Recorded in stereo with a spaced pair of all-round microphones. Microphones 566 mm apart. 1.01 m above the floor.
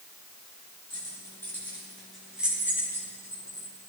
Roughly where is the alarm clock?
No alarm clock in this recording.